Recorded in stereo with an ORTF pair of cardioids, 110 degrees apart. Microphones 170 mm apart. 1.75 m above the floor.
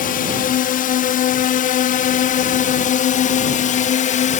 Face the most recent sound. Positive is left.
turn(degrees=50)